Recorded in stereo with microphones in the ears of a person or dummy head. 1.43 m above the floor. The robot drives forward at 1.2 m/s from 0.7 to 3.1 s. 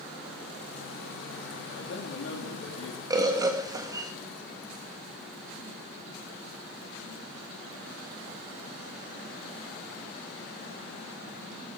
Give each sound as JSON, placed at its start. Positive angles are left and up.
{"t": 1.8, "sound": "a man speaking", "side_deg": 75, "distance_m": 3.0}
{"t": 3.1, "sound": "a bird", "side_deg": -20, "distance_m": 1.7}